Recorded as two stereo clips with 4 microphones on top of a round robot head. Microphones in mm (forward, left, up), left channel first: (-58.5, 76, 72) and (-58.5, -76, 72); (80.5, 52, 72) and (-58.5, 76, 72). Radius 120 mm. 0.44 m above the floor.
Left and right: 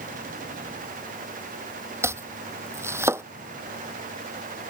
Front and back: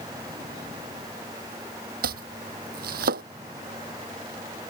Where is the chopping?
165° right.